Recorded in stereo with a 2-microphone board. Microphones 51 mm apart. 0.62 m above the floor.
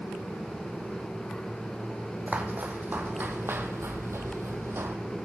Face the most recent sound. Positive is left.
turn(degrees=-55)  # may be behind; listen again after turning